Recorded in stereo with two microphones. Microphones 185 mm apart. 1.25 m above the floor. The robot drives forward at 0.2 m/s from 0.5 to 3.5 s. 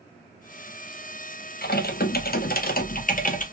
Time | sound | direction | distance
1.6 | typing on a keyboard | 55° left (ahead or behind) | 0.5 m